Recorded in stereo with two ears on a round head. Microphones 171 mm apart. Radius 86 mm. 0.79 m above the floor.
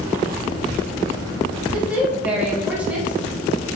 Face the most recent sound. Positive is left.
turn(degrees=-10)  # may be behind; listen again after turning